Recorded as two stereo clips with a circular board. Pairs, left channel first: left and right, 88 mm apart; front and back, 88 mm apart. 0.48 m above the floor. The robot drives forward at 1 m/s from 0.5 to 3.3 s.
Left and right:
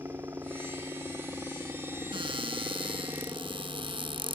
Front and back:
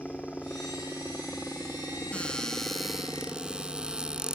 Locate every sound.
0.0 s a helicopter: 65° right; by 4.3 s 75° right
2.1 s a cupboard door: 75° right; by 4.3 s 100° right